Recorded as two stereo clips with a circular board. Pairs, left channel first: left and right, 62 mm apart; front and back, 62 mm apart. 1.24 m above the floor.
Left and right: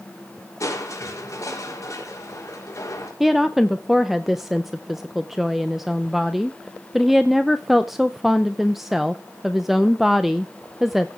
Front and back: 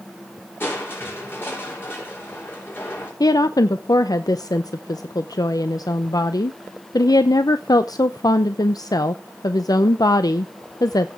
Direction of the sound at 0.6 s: 55° left.